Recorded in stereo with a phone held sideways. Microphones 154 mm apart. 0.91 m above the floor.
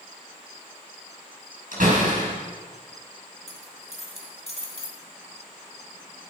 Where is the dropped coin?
50° left (ahead or behind), 2 m.